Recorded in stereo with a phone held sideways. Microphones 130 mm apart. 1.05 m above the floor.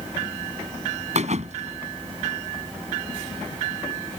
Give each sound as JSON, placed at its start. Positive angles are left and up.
{"t": 1.1, "sound": "a thud", "side_deg": -60}